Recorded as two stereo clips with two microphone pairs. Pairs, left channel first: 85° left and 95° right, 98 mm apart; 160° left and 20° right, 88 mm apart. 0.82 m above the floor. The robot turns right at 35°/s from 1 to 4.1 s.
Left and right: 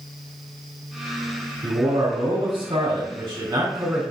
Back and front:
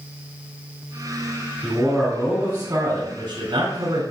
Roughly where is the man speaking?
Behind right.